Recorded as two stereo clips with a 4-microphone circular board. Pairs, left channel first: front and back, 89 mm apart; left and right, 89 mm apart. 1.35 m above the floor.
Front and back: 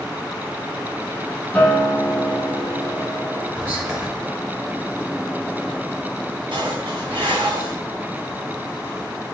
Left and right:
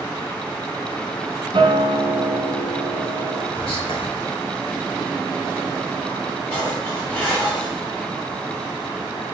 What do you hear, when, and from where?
1.5 s a guitar: 80° right, 1.2 m
3.5 s whispering: 105° left, 2.5 m
6.5 s dishes clattering: 160° left, 3 m